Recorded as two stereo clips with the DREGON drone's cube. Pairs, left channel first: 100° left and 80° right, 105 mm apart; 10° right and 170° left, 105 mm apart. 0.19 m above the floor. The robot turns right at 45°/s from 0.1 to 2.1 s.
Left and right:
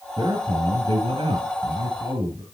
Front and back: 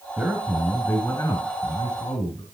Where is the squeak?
No squeak in this recording.